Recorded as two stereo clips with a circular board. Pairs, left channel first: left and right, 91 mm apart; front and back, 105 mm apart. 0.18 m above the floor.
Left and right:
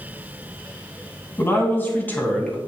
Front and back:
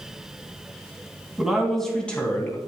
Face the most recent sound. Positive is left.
turn(degrees=35)